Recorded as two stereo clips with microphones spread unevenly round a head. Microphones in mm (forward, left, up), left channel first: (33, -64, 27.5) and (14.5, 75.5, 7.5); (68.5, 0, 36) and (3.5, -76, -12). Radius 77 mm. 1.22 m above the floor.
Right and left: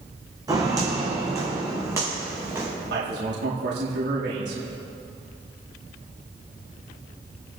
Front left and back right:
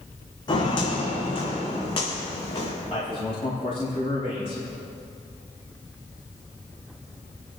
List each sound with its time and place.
0.5 s footsteps: 30° left, 3 m; by 2.7 s 25° left, 5 m
2.9 s a man speaking: 105° left, 2 m